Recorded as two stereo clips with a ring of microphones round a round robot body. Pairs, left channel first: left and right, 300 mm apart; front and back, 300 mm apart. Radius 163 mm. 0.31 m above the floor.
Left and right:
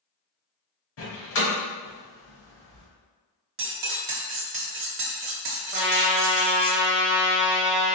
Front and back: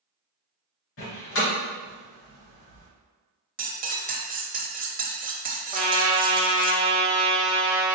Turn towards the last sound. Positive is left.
turn(degrees=-120)